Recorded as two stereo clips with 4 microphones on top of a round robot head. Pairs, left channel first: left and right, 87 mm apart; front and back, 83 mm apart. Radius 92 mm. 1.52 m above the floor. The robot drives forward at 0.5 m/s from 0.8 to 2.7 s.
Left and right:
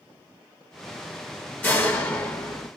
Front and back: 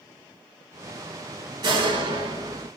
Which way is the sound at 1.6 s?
160° left.